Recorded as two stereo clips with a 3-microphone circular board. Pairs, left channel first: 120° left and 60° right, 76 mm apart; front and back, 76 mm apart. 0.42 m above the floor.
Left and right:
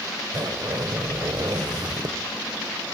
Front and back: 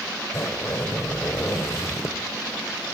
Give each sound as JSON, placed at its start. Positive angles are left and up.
{"t": 0.3, "sound": "a zipper", "azimuth_deg": -45, "distance_m": 1.4}